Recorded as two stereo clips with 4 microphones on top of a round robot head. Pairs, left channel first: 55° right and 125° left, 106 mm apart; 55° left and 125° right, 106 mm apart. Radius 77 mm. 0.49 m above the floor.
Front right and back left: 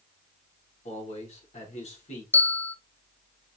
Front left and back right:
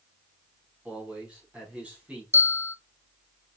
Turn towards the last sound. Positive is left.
turn(degrees=5)